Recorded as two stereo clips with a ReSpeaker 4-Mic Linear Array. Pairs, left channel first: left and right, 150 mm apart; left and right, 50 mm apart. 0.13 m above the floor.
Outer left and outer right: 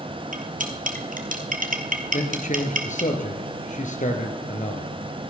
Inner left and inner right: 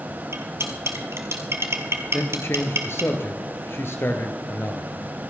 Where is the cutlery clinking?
65° right (ahead or behind), 1.8 m.